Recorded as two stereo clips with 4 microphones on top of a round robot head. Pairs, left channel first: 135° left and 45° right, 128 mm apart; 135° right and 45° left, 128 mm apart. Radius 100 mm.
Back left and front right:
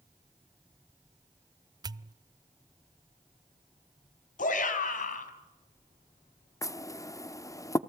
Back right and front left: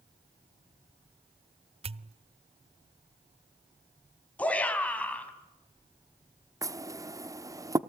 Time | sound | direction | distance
1.8 | a pop | 10° left | 0.6 m
4.4 | a shout | 145° left | 4 m
6.6 | knocking | 90° left | 1.0 m